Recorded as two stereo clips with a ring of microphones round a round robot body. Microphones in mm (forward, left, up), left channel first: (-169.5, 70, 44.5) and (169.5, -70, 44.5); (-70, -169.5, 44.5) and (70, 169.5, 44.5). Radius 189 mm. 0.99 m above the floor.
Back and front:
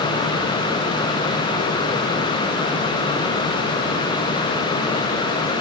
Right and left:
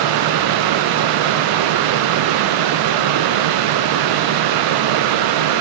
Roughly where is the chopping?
No chopping in this recording.